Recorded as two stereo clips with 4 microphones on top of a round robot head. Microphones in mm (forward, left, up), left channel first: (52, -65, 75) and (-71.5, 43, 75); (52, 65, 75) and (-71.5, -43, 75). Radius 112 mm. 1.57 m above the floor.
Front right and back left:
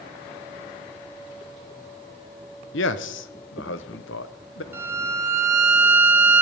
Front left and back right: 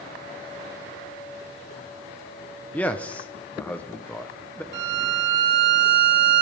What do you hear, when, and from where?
2.7 s a man speaking: 40° right, 0.7 m
4.7 s a violin: 145° right, 1.4 m